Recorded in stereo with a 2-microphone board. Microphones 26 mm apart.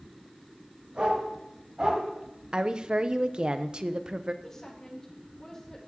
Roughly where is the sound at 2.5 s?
Right.